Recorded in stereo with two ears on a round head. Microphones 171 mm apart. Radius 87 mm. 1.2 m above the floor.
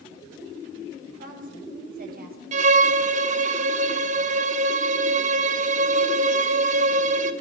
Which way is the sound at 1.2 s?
45° right (ahead or behind).